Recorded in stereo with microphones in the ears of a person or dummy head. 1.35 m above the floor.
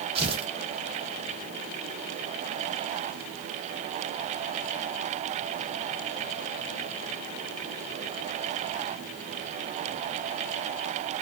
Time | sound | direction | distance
0.1 | tearing paper | 30° right (ahead or behind) | 0.6 m